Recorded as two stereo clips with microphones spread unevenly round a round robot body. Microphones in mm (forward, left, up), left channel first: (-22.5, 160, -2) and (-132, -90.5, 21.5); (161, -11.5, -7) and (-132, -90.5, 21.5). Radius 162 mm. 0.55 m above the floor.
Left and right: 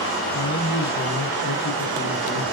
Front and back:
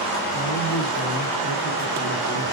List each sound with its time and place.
0.3 s a man speaking: 60° left, 4.5 m